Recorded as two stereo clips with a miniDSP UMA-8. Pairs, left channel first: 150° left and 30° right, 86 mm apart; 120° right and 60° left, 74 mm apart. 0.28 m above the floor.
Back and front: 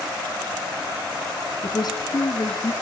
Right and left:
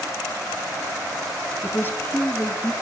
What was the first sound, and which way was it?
A woman speaking, straight behind.